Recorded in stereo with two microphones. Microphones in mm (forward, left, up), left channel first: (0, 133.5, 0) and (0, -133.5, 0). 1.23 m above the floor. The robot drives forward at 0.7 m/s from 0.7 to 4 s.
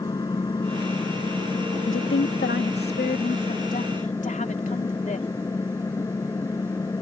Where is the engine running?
15° left (ahead or behind).